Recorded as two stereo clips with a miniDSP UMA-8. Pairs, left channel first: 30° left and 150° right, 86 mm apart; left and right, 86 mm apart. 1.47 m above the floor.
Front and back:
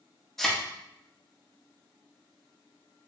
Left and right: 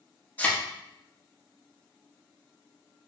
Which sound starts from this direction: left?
A thud, at 0.4 s.